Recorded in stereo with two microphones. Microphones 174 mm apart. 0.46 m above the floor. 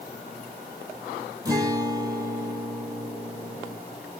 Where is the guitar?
20° right (ahead or behind), 2.5 m.